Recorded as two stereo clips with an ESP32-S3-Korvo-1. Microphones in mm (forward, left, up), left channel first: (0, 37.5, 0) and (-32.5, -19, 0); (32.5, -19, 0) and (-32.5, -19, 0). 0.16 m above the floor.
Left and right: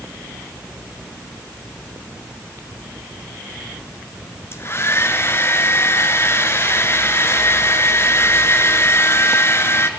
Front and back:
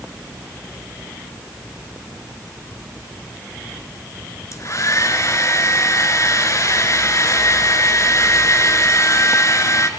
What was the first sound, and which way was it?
A hair dryer, 20° left.